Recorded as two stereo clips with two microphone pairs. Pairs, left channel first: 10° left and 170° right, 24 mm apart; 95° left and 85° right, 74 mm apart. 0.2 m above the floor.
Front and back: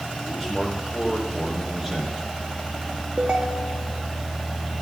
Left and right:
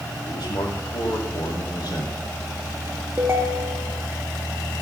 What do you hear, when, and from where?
0.3 s a man speaking: 115° left, 7 m
3.2 s a ringtone: 140° right, 1.8 m